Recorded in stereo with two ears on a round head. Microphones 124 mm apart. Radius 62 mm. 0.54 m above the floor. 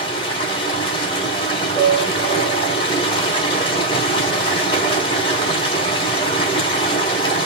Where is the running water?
40° left (ahead or behind), 3 m.